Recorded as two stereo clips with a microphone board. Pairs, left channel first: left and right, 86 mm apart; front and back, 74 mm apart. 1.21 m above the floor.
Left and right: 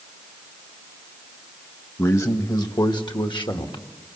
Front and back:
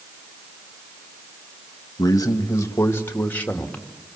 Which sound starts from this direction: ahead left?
A man speaking, at 2.0 s.